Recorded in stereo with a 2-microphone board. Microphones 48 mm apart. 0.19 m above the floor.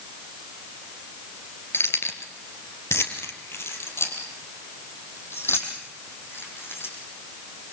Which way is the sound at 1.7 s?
65° left (ahead or behind).